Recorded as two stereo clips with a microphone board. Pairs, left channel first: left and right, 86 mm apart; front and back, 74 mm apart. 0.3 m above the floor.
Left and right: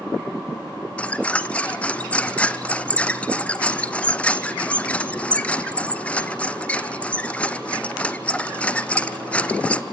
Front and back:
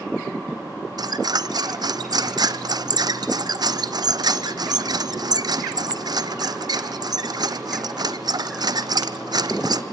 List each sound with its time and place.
1.0 s a squeak: 165° left, 0.8 m